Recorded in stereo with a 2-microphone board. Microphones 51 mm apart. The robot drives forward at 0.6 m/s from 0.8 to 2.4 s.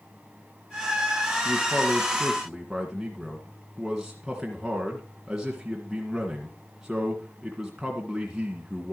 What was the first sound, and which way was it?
A man speaking, 10° right (ahead or behind).